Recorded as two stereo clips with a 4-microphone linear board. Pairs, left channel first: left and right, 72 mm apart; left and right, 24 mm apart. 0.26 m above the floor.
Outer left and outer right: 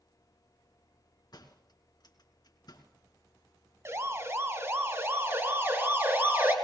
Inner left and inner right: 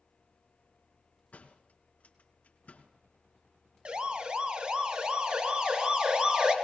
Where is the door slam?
70° left (ahead or behind), 3 m.